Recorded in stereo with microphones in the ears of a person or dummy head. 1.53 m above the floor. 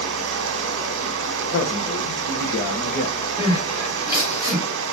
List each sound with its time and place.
0.0 s running water: 70° right (ahead or behind), 1.0 m
1.5 s a man speaking: 55° left (ahead or behind), 1.1 m
3.4 s crying: 35° left (ahead or behind), 3 m